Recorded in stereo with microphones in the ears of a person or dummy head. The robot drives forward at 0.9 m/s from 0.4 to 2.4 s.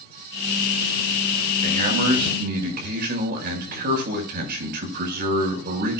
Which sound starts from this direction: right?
A man speaking, at 1.6 s.